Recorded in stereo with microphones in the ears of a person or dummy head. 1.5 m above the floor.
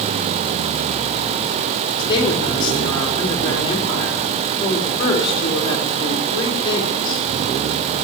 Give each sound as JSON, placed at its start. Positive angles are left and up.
{"t": 2.0, "sound": "a woman speaking", "side_deg": 25, "distance_m": 3.5}